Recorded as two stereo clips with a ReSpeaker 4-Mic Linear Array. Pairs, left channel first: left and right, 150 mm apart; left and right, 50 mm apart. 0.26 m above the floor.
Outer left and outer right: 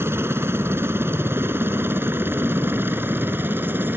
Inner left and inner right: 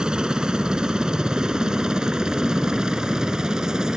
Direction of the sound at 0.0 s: 15° right (ahead or behind).